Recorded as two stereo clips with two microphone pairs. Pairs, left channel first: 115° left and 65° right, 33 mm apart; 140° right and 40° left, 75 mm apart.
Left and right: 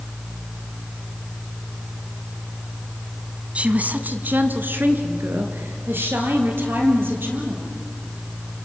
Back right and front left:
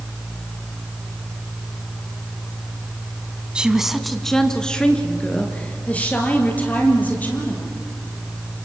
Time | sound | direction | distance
3.5 | a woman speaking | 30° right | 1.3 m